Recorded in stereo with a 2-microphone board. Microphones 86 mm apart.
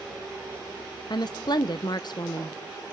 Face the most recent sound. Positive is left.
turn(degrees=55)  # may be behind; listen again after turning